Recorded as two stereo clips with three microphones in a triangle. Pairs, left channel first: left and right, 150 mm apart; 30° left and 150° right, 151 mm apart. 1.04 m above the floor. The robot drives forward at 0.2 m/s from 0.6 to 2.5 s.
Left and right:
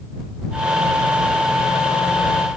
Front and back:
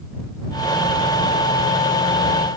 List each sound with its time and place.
Only background noise.